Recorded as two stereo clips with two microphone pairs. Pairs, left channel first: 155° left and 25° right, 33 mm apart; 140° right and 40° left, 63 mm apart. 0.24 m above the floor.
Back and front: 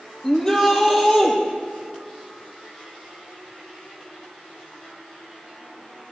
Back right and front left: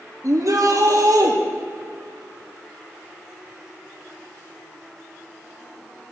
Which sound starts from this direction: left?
A shout, at 0.2 s.